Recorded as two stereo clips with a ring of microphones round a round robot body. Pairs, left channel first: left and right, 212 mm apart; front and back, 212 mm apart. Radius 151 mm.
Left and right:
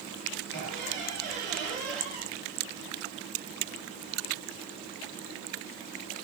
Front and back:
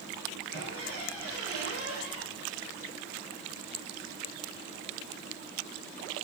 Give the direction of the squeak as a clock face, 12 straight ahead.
6 o'clock.